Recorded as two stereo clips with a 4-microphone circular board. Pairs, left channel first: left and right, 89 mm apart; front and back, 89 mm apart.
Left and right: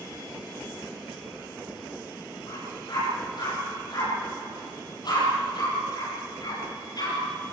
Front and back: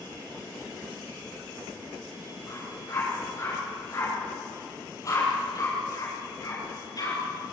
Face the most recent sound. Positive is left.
turn(degrees=45)